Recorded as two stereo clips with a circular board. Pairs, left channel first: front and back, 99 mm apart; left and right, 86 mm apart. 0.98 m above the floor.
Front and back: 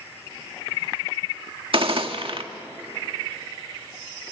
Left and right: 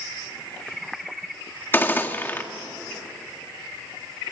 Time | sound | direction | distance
1.7 | a gunshot | 155° left | 1.7 m